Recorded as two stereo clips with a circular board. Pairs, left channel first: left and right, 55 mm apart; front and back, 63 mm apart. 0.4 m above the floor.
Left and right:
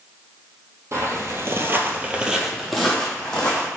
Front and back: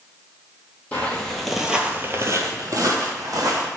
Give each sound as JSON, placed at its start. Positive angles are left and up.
{"t": 0.9, "sound": "footsteps", "azimuth_deg": -65, "distance_m": 0.8}